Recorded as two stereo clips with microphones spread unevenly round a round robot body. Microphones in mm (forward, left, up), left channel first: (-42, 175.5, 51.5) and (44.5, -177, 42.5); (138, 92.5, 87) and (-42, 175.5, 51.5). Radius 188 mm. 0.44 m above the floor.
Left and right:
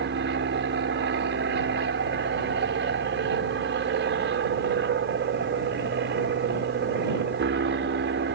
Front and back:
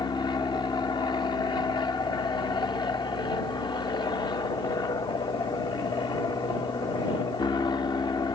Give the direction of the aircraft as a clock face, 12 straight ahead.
3 o'clock.